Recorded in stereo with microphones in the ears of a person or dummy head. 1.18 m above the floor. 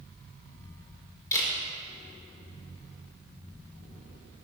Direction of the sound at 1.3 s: 15° left (ahead or behind).